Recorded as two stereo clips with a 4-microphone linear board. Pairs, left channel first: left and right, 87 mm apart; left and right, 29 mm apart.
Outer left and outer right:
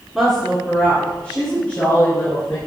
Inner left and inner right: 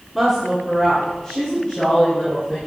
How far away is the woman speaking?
About 1.6 m.